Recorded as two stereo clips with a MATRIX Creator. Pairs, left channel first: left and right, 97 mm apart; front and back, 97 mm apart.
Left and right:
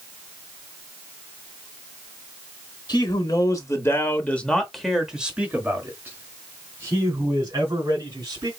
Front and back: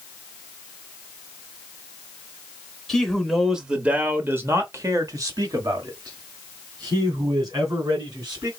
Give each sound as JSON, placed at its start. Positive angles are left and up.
{"t": 2.9, "sound": "a man speaking", "azimuth_deg": 85, "distance_m": 1.3}